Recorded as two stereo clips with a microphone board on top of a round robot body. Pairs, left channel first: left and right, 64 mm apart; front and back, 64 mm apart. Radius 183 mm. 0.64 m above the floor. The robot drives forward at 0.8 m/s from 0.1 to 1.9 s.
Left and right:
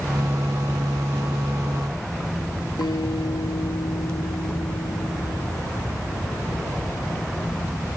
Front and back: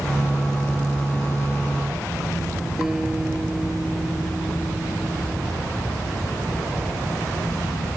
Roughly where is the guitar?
Left.